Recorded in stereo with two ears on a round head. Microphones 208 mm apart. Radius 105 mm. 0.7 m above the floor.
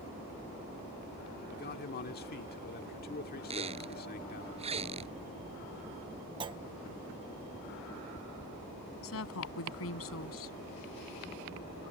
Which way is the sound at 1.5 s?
45° left (ahead or behind).